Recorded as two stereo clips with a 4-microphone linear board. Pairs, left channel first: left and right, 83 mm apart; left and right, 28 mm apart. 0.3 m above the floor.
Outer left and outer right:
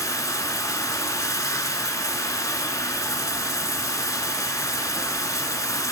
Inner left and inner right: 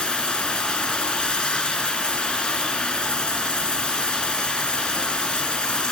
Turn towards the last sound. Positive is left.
turn(degrees=45)  # may be behind; listen again after turning